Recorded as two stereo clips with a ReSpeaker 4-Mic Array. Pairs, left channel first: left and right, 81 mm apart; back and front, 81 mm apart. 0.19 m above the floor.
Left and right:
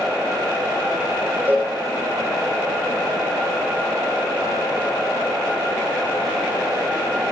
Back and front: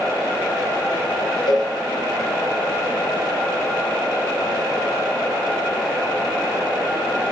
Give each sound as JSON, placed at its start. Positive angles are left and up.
{"t": 1.5, "sound": "a cowbell", "azimuth_deg": -155, "distance_m": 7.5}